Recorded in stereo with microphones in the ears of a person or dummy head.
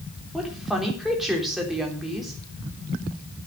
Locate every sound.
0.3 s a woman speaking: 5° right (ahead or behind), 4 m